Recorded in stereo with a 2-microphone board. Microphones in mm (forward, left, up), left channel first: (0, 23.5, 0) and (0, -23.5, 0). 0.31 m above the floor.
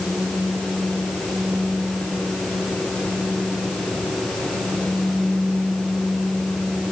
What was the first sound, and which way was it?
Only background noise.